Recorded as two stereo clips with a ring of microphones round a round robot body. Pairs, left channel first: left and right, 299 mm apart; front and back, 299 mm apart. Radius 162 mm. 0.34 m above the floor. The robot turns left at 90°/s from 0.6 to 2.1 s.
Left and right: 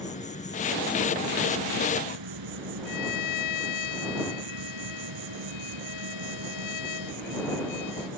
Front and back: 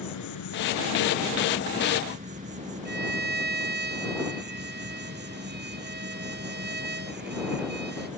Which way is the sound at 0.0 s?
25° left.